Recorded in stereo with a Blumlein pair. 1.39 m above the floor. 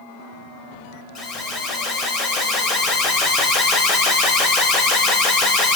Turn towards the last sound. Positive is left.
turn(degrees=25)